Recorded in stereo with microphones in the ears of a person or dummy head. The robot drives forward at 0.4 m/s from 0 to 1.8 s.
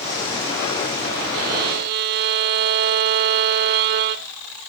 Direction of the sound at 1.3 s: 50° right (ahead or behind).